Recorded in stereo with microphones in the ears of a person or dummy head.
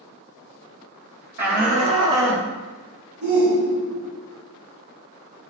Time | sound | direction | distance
1.4 | a shout | 45° right (ahead or behind) | 1.8 m
3.2 | a shout | 55° right (ahead or behind) | 2.5 m